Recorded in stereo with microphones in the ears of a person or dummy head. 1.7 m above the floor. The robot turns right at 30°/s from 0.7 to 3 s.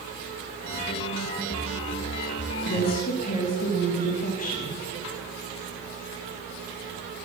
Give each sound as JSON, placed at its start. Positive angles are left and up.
{"t": 2.6, "sound": "a woman speaking", "side_deg": 50, "distance_m": 3.0}